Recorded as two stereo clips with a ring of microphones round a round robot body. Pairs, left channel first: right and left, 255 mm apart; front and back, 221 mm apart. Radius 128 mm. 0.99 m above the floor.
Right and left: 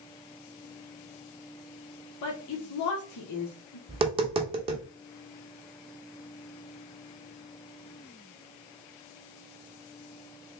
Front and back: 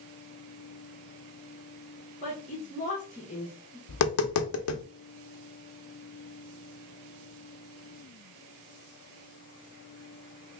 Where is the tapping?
20° left, 0.7 m.